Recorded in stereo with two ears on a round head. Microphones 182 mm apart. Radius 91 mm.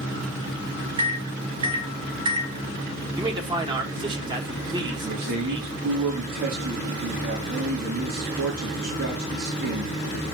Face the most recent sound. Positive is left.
turn(degrees=-85)